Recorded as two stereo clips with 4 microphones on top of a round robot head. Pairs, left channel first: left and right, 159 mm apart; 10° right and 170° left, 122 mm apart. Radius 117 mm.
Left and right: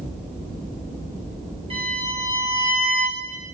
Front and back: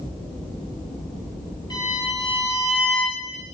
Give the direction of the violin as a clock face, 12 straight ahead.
2 o'clock.